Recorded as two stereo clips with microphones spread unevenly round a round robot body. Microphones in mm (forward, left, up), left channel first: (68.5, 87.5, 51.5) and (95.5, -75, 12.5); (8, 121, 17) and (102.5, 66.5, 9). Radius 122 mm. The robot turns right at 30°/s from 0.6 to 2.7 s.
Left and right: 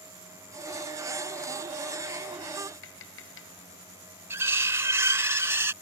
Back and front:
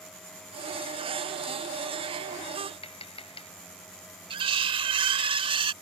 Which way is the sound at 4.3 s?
15° right.